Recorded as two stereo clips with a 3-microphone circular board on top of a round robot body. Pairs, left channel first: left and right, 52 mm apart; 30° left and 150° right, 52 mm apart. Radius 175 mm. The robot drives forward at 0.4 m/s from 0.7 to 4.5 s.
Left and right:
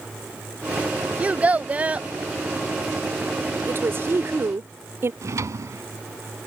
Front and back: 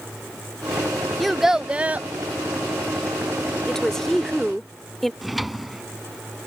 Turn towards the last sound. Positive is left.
turn(degrees=-60)